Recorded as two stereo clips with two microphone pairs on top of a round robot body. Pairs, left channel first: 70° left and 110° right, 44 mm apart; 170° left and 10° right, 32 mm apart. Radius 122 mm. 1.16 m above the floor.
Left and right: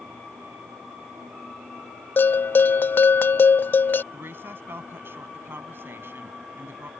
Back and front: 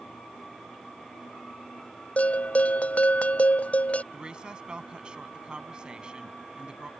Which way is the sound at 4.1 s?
70° right.